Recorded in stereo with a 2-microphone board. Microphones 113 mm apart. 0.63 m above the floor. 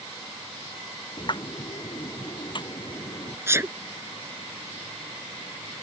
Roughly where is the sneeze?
Right.